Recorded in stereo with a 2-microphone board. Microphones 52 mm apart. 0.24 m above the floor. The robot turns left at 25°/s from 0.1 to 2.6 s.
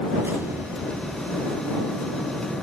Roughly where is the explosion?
Right.